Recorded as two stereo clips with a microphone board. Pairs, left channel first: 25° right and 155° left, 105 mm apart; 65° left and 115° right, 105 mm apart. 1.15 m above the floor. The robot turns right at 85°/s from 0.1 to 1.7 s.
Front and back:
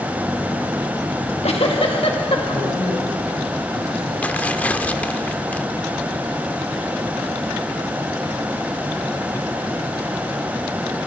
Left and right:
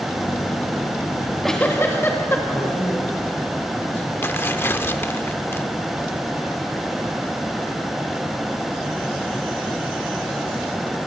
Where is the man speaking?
5° right, 10 m.